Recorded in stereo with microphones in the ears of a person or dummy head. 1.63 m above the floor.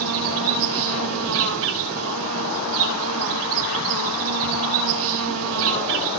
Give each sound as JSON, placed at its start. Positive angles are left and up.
{"t": 0.0, "sound": "an insect", "side_deg": -65, "distance_m": 3.5}